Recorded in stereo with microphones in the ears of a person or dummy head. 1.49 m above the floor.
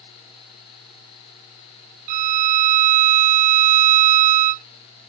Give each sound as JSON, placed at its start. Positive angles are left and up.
{"t": 2.1, "sound": "a violin", "side_deg": -40}